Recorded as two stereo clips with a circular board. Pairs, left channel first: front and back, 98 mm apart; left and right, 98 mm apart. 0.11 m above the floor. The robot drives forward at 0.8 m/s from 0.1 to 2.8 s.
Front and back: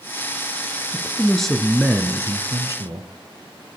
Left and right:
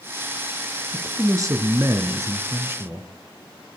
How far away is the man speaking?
About 1.3 m.